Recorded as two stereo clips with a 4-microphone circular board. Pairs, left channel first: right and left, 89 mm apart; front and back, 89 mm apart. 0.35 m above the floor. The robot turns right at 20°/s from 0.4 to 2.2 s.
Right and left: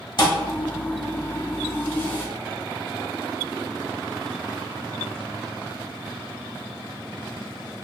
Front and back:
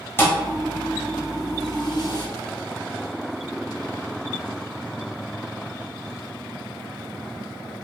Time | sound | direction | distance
0.2 | a thud | 60° right | 0.7 m